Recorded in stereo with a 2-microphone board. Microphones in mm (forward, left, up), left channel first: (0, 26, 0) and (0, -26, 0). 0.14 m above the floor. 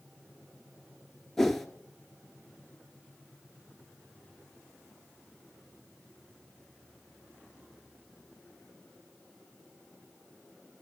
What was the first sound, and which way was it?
A whoosh, 5° left (ahead or behind).